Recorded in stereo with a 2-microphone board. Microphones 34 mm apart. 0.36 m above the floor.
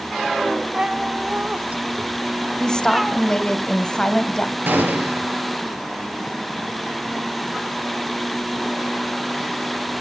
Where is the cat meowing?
25° right (ahead or behind), 1.4 m; by 3.2 s 5° right (ahead or behind), 1.5 m.